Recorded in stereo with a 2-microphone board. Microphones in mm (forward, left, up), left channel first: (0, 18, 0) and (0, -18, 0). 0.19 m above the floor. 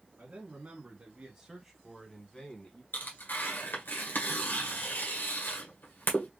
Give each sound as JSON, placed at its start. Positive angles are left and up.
{"t": 0.2, "sound": "a man speaking", "side_deg": -50, "distance_m": 1.6}
{"t": 2.9, "sound": "tearing paper", "side_deg": 65, "distance_m": 1.7}